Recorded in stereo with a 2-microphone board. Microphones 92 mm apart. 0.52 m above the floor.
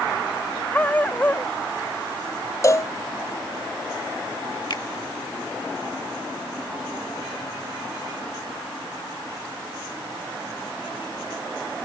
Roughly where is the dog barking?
Centre.